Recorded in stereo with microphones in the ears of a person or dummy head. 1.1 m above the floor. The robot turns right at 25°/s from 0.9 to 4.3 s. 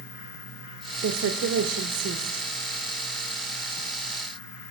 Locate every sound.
1.0 s a woman speaking: 90° right, 0.7 m; by 2.5 s 55° right, 0.7 m